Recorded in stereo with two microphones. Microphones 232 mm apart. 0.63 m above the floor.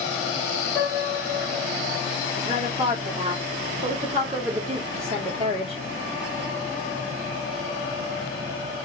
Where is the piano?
5° left (ahead or behind), 1.8 m.